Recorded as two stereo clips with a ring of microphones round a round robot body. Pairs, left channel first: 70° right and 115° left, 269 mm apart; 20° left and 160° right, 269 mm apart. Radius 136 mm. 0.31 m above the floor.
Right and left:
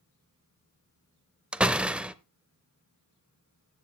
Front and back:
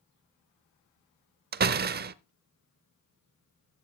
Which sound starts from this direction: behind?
A door slam, at 1.5 s.